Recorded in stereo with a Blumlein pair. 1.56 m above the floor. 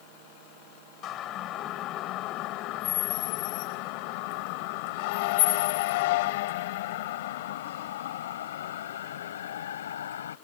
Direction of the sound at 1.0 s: 30° left.